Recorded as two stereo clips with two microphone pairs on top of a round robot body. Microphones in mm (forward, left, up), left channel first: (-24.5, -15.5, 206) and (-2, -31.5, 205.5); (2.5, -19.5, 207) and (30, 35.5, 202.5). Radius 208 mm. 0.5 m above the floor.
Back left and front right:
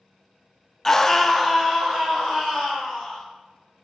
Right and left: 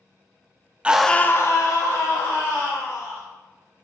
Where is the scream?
90° left, 0.6 m; by 3.2 s 115° right, 2 m.